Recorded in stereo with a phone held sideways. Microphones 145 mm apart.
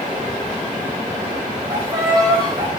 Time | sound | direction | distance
1.7 | a violin | 30° right (ahead or behind) | 4 m